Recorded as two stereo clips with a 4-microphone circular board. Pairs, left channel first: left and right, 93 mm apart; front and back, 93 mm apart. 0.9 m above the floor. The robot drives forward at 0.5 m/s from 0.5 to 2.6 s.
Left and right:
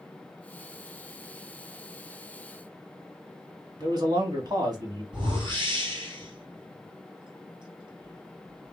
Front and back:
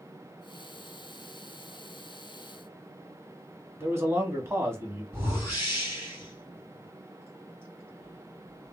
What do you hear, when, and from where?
3.8 s a man speaking: 125° right, 1.1 m
5.1 s a whoosh: 120° right, 1.7 m